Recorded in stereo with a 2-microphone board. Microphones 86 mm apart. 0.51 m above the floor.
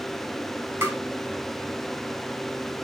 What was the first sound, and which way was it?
Tapping, 30° right (ahead or behind).